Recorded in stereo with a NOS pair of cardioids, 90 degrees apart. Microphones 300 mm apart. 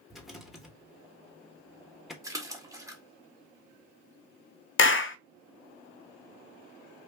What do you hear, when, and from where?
0.1 s a rattle: straight ahead, 1.1 m
2.2 s a splash: 10° right, 1.4 m
4.8 s a clap: 40° left, 0.5 m